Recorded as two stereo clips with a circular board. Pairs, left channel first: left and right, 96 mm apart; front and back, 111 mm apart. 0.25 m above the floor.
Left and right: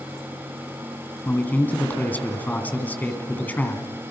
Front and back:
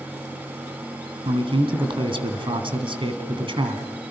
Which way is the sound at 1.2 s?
160° left.